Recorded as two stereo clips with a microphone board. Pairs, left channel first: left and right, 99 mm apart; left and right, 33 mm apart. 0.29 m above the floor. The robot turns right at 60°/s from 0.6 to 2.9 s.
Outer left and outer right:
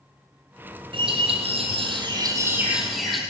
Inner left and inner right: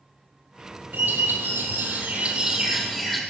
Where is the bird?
120° right, 2 m; by 3.2 s straight ahead, 2 m.